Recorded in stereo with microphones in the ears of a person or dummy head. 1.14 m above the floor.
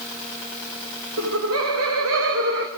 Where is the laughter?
65° right (ahead or behind), 1.9 m; by 2.7 s 55° right (ahead or behind), 1.7 m.